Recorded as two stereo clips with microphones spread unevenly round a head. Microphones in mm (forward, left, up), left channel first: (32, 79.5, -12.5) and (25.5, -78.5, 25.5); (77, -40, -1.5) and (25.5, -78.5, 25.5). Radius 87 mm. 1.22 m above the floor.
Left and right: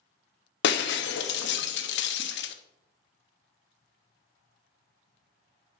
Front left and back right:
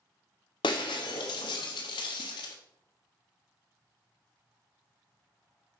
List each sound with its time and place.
0.6 s breaking glass: 80° left, 0.8 m